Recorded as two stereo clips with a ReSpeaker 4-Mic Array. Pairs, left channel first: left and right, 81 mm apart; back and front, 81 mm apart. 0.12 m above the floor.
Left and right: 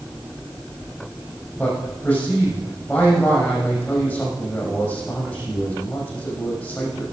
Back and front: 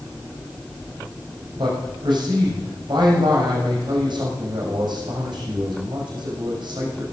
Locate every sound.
1.6 s a man speaking: 20° left, 6 m